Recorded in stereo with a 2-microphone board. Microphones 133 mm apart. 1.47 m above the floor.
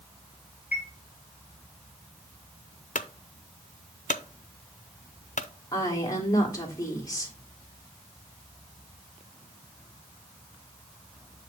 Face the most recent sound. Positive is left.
turn(degrees=25)  # may be behind; listen again after turning